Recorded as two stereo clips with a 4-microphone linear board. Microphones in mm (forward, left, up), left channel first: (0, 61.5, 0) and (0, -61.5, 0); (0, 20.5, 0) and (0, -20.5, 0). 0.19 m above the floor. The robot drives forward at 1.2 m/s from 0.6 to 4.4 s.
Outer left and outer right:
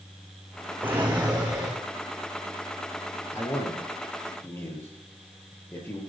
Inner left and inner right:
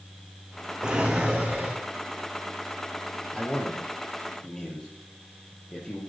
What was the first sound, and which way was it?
A drawer, 15° right (ahead or behind).